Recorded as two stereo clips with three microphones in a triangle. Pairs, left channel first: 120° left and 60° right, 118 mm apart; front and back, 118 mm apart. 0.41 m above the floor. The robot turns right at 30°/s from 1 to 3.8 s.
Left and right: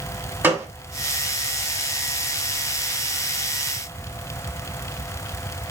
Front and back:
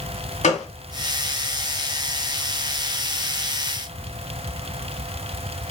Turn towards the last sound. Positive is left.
turn(degrees=95)